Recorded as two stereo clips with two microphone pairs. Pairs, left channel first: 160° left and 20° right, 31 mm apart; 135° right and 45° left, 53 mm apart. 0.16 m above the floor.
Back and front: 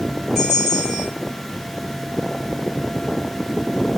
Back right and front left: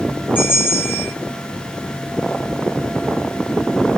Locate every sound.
0.3 s a bell: 120° right, 1.9 m